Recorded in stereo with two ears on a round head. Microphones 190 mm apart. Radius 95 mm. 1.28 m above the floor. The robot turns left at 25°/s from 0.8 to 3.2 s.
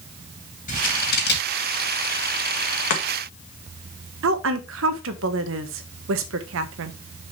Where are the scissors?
40° left (ahead or behind), 2.5 m; by 1.6 s 60° left (ahead or behind), 2.5 m.